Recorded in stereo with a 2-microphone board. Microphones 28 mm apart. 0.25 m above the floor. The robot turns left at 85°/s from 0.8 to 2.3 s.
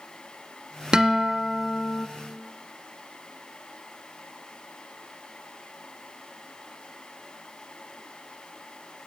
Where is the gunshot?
I don't hear a gunshot.